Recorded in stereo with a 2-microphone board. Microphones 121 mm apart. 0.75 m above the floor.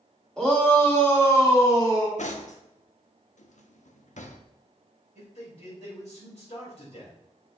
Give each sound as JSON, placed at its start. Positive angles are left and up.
{"t": 0.4, "sound": "a shout", "side_deg": 5, "distance_m": 2.5}
{"t": 2.2, "sound": "cutlery clinking", "side_deg": 80, "distance_m": 0.7}
{"t": 5.2, "sound": "a man speaking", "side_deg": 65, "distance_m": 3.5}